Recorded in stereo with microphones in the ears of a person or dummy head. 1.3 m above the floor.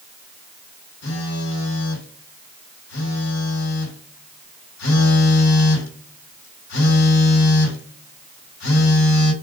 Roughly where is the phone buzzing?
Left.